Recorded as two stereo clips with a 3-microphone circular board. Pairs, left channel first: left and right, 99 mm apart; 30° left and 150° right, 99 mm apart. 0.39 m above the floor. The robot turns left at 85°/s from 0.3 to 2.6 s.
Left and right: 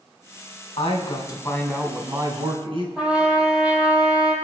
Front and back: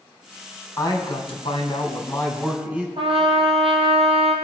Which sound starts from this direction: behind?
A trumpet, at 3.0 s.